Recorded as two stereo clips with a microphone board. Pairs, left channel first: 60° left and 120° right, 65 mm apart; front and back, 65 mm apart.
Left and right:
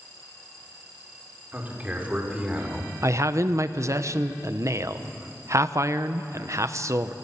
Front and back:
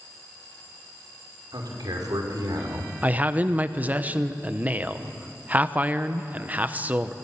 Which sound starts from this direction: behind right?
A man speaking, at 3.0 s.